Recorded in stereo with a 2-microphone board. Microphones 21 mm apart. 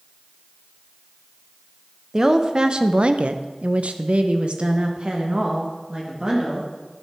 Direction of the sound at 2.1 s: 30° right (ahead or behind).